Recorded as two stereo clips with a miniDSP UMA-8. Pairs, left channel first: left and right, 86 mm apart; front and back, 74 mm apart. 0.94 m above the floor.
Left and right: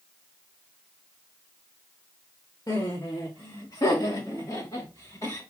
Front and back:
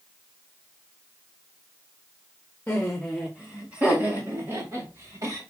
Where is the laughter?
65° left, 1.5 m; by 5.4 s 145° left, 4 m.